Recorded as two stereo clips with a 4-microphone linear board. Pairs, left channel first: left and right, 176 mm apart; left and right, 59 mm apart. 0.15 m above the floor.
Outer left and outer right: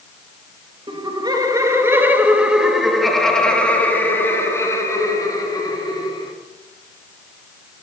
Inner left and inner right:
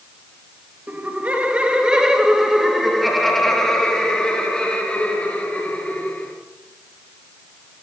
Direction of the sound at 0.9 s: 30° right (ahead or behind).